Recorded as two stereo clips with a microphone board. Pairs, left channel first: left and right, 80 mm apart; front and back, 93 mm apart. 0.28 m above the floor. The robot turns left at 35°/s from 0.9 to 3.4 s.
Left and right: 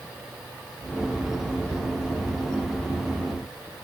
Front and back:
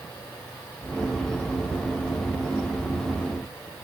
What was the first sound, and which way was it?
Only background noise.